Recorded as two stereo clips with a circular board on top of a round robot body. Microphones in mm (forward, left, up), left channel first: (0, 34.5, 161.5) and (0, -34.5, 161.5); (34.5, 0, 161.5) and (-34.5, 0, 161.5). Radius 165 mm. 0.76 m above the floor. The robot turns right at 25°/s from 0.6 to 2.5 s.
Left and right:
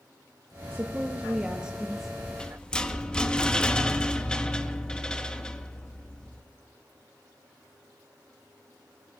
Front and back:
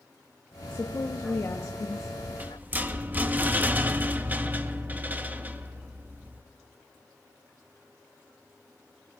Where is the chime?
I don't hear a chime.